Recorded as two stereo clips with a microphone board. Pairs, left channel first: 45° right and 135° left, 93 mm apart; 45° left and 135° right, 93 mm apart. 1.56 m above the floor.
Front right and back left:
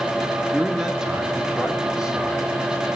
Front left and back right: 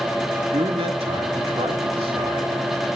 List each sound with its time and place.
0.5 s a man speaking: 140° right, 3 m; by 2.9 s 145° right, 4 m